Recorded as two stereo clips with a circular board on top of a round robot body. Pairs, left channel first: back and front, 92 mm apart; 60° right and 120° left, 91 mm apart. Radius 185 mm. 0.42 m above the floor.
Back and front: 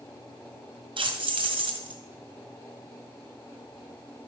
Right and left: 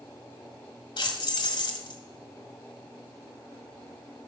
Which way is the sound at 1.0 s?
30° right.